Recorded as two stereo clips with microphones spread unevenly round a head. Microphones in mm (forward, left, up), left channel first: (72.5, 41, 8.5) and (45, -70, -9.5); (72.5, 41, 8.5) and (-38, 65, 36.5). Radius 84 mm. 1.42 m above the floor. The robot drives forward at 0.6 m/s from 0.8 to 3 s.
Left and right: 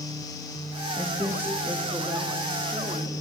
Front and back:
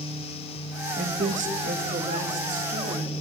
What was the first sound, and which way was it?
A woman speaking, 175° left.